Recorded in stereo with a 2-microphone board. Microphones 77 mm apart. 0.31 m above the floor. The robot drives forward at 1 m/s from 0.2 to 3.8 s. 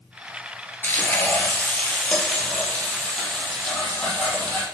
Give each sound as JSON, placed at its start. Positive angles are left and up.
{"t": 0.8, "sound": "frying", "side_deg": 20, "distance_m": 2.5}